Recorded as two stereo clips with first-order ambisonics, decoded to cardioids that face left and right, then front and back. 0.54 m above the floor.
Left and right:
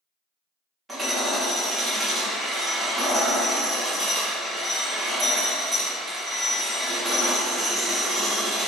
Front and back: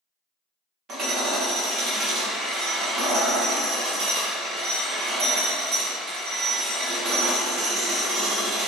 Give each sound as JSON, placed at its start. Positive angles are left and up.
{"t": 0.9, "sound": "hammering", "azimuth_deg": -160, "distance_m": 0.6}